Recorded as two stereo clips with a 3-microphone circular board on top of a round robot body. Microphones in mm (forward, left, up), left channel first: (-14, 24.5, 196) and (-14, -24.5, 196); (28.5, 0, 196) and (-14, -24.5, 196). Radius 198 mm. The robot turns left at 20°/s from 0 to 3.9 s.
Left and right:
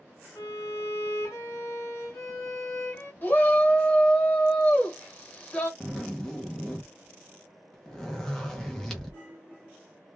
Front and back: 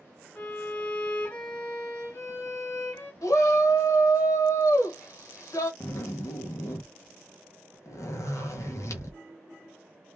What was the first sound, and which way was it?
A violin, 95° left.